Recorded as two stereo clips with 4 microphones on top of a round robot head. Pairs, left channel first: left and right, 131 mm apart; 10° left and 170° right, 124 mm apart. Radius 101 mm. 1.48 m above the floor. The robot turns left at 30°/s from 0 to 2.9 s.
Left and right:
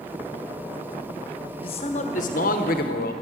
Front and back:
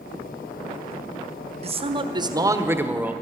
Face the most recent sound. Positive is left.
turn(degrees=110)